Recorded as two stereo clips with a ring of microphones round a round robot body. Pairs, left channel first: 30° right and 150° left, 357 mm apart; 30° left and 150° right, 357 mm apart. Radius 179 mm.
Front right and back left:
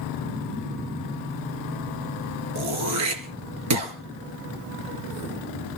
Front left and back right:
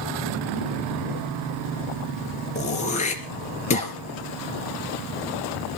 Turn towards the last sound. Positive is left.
turn(degrees=100)